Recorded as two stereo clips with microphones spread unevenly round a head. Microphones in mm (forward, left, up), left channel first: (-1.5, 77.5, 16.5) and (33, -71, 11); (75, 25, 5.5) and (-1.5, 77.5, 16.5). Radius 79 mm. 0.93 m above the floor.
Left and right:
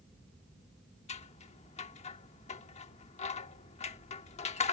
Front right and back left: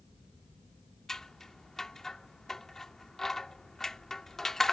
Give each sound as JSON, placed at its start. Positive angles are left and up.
{"t": 1.1, "sound": "scissors", "azimuth_deg": 55}